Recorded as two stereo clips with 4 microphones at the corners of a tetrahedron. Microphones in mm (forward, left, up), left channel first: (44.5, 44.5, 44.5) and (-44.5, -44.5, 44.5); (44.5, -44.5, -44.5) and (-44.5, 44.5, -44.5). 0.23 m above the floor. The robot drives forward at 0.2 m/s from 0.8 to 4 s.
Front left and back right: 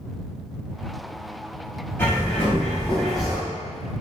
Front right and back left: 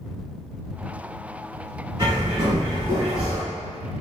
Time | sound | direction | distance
2.0 | a bird | 110° left | 0.8 m